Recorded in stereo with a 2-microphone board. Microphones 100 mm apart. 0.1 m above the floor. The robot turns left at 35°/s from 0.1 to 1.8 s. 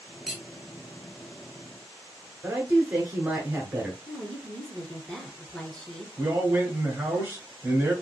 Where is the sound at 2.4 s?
15° right (ahead or behind), 1.1 m.